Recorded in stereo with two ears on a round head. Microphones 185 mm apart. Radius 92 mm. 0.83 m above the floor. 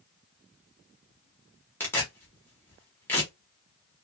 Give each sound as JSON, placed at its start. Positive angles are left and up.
{"t": 1.8, "sound": "tearing paper", "side_deg": 10, "distance_m": 1.1}